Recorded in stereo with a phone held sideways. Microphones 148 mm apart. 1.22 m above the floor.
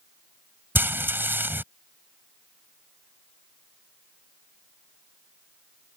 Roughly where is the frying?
Centre.